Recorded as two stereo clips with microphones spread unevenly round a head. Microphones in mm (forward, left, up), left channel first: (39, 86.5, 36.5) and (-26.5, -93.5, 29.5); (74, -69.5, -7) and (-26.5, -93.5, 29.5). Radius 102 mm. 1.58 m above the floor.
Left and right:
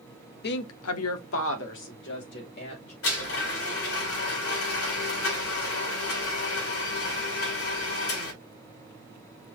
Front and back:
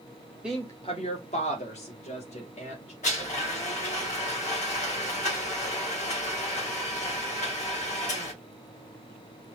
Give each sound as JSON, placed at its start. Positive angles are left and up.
{"t": 0.4, "sound": "a woman speaking", "azimuth_deg": 110, "distance_m": 0.6}
{"t": 3.0, "sound": "a blender", "azimuth_deg": 60, "distance_m": 4.0}